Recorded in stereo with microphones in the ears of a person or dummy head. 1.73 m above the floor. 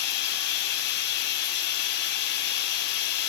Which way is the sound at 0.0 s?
60° left (ahead or behind).